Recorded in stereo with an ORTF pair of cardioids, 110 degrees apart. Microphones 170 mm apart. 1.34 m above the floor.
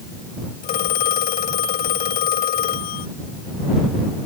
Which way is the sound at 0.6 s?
65° left.